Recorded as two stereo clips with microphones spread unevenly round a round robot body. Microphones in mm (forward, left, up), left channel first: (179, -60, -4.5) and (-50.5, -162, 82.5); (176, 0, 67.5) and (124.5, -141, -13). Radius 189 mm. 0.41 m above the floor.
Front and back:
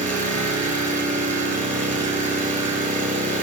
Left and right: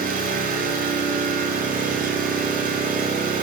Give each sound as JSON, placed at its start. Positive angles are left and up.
{"t": 0.0, "sound": "an engine running", "azimuth_deg": -95, "distance_m": 6.5}